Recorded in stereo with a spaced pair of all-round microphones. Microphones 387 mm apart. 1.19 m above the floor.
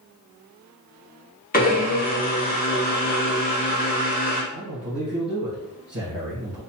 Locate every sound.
1.5 s a blender: 25° left (ahead or behind), 1.0 m
4.5 s a man speaking: 45° right (ahead or behind), 1.0 m